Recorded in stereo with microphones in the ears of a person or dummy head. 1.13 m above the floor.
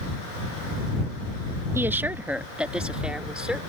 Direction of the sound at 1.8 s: 10° right (ahead or behind).